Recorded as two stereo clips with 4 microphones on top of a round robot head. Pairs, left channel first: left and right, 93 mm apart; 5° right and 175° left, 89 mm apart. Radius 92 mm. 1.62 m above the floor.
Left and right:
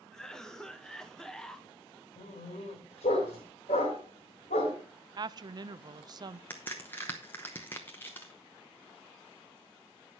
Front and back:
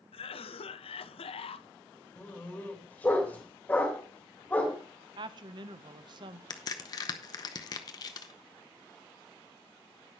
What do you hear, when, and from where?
0.1 s a cough: 5° left, 0.8 m
2.2 s a dog barking: 65° left, 3 m
5.2 s a woman speaking: 135° right, 0.6 m
6.5 s a crack: 15° left, 0.8 m